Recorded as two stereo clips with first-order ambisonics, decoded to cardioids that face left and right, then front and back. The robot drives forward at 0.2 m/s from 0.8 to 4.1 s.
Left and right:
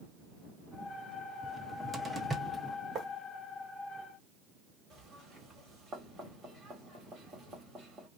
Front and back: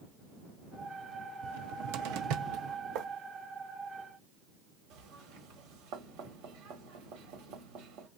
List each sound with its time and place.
1.4 s a cupboard door: 170° right, 0.6 m; by 2.8 s 175° right, 0.8 m
3.0 s writing: 155° right, 1.3 m
4.9 s knocking: 160° right, 1.6 m